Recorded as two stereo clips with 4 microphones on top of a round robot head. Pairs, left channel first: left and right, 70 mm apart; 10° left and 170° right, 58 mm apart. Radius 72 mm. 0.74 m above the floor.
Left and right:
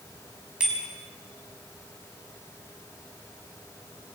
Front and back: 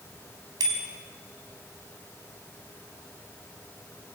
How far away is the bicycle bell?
About 4.5 m.